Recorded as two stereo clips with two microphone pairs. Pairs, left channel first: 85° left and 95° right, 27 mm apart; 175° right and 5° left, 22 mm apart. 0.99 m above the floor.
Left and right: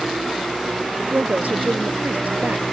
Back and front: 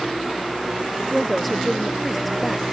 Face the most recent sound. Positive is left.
turn(degrees=-85)